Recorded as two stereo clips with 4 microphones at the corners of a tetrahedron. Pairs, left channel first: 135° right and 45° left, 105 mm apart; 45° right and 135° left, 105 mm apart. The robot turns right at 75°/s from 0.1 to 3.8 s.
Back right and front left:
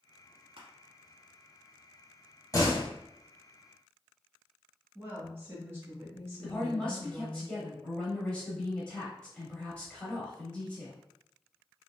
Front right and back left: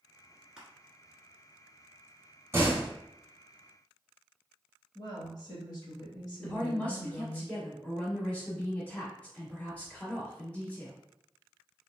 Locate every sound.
0.6 s crushing: 55° left, 1.1 m; by 0.7 s 60° left, 1.1 m
2.5 s a door slam: 170° right, 0.9 m; by 2.9 s 145° right, 0.9 m
5.0 s a woman speaking: 15° right, 1.7 m
6.4 s a woman speaking: 80° right, 1.0 m